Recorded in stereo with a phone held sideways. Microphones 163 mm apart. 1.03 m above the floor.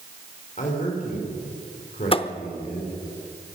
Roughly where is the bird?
No bird in this recording.